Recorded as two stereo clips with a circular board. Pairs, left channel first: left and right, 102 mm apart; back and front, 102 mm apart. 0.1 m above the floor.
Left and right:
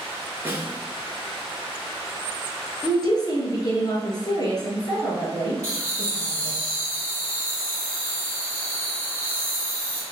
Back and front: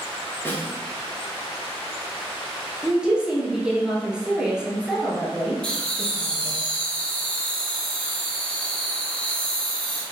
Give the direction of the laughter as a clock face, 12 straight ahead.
3 o'clock.